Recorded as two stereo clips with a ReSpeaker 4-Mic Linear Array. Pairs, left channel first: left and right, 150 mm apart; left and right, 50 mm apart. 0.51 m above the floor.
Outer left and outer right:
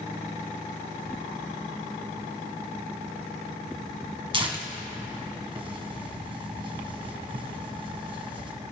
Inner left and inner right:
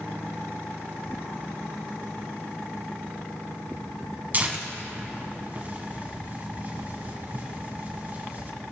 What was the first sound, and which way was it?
Tearing paper, 35° right (ahead or behind).